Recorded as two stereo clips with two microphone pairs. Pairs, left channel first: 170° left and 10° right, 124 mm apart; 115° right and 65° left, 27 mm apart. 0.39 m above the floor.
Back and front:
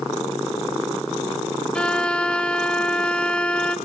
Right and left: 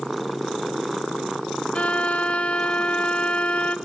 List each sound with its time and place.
1.8 s a violin: 115° right, 1.1 m